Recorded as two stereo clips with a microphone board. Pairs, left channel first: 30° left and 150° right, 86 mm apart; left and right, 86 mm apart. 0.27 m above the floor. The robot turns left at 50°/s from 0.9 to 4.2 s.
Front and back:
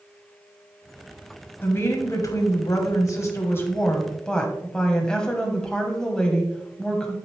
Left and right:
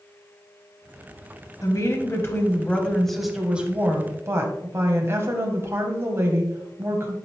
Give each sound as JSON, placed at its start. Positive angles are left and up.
{"t": 1.6, "sound": "a woman speaking", "azimuth_deg": 80, "distance_m": 1.8}